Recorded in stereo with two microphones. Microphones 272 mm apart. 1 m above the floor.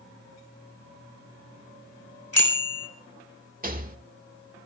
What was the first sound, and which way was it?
A bicycle bell, 60° left (ahead or behind).